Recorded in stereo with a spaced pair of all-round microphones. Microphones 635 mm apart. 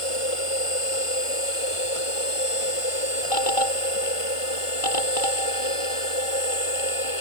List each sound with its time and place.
0.0 s a machine running: 50° left (ahead or behind)